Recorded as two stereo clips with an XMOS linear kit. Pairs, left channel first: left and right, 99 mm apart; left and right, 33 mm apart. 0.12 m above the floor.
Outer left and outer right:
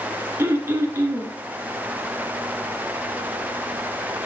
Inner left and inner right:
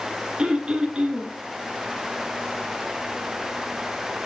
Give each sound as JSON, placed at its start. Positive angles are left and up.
{"t": 0.4, "sound": "throat clearing", "side_deg": -25, "distance_m": 1.6}